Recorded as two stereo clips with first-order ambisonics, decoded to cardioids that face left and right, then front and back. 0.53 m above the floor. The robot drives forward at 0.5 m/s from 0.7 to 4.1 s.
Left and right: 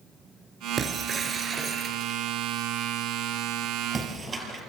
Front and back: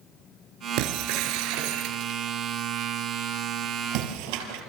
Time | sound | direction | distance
0.8 | breaking glass | 155° right | 3.5 m